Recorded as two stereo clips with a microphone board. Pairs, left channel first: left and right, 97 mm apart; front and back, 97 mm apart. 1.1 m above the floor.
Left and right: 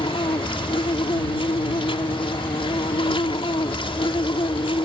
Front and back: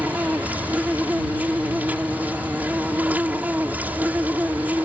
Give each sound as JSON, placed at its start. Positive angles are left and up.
{"t": 0.0, "sound": "an insect", "azimuth_deg": 110}